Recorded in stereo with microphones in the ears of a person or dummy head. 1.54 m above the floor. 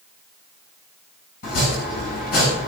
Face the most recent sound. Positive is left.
turn(degrees=60)  # may be behind; listen again after turning